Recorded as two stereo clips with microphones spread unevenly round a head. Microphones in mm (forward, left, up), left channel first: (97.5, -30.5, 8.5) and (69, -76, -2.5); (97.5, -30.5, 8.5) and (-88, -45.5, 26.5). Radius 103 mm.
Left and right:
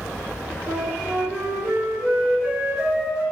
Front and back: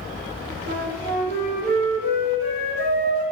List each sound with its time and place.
0.7 s a flute: 160° left, 1.2 m